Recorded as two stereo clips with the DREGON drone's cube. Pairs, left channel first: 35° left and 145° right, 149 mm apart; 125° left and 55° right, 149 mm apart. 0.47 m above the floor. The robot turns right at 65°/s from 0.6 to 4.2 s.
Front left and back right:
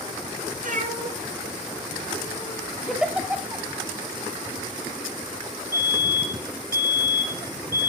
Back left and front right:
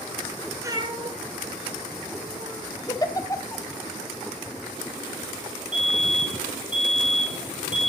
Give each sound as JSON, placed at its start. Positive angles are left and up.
{"t": 0.6, "sound": "a cat meowing", "azimuth_deg": -125, "distance_m": 1.8}
{"t": 2.9, "sound": "a giggle", "azimuth_deg": 120, "distance_m": 1.2}
{"t": 5.7, "sound": "a fire alarm", "azimuth_deg": -30, "distance_m": 5.0}